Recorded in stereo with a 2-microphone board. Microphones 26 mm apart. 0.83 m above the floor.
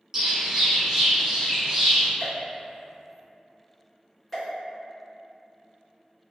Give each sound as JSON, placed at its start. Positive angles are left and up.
{"t": 0.1, "sound": "a bird", "side_deg": -20, "distance_m": 0.8}
{"t": 2.2, "sound": "a pop", "side_deg": 0, "distance_m": 1.4}